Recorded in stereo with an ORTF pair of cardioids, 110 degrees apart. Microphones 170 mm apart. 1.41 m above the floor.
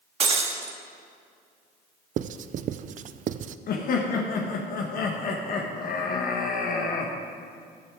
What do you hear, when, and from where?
0.2 s breaking glass: 40° right, 1.6 m
2.2 s writing: 50° right, 0.5 m
3.7 s laughter: 60° left, 1.4 m